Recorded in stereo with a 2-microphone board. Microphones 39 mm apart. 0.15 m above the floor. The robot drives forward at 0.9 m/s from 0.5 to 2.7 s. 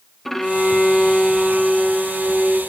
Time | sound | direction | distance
0.2 | a violin | 5° left (ahead or behind) | 0.8 m